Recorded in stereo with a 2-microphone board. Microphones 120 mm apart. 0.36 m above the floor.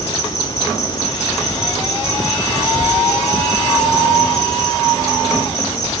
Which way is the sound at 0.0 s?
35° left (ahead or behind).